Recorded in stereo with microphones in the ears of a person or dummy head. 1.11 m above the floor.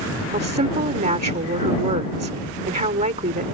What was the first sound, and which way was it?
A woman speaking, 35° right (ahead or behind).